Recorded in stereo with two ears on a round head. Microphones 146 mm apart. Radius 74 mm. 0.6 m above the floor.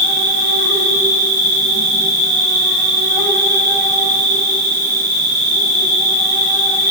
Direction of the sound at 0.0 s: 10° left (ahead or behind).